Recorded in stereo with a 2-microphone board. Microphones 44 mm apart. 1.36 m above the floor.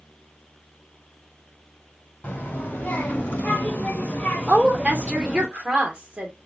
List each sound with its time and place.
2.2 s a child speaking: 40° left (ahead or behind), 1.4 m; by 5.5 s 5° left (ahead or behind), 0.9 m
4.5 s a woman speaking: 30° right (ahead or behind), 0.9 m